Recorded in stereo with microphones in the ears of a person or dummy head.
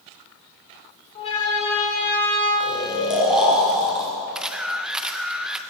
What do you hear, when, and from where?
1.1 s a siren: 40° left (ahead or behind), 6 m; by 2.5 s 45° left (ahead or behind), 7 m
2.6 s snoring: 10° right (ahead or behind), 6 m
4.3 s a camera shutter: centre (ahead or behind), 1.1 m